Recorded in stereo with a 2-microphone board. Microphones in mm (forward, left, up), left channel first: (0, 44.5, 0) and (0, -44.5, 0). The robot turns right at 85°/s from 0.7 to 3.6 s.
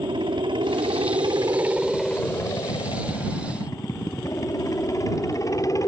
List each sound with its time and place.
0.0 s a helicopter: 105° right; by 5.9 s 140° left